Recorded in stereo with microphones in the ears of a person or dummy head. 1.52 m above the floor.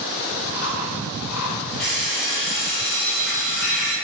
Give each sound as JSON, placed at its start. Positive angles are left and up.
{"t": 0.4, "sound": "chewing", "side_deg": 0, "distance_m": 1.5}
{"t": 1.8, "sound": "an alarm clock", "side_deg": 5, "distance_m": 1.3}